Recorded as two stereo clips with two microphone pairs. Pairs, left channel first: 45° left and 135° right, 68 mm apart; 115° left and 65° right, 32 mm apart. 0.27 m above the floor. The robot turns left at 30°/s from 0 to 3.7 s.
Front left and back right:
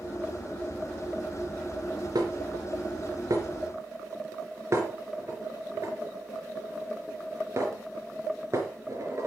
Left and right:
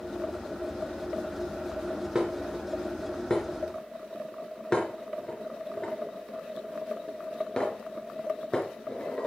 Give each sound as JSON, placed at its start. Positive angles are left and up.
{"t": 2.1, "sound": "dishes clattering", "azimuth_deg": -135, "distance_m": 3.5}